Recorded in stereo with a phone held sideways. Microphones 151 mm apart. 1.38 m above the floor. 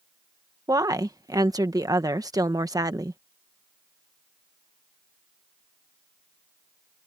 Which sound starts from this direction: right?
A woman speaking, at 0.7 s.